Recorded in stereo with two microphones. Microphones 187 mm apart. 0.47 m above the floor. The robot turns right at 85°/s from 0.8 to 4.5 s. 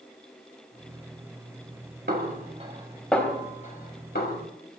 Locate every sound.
2.1 s a snare drum: 65° right (ahead or behind), 3 m; by 4.4 s 60° left (ahead or behind), 3 m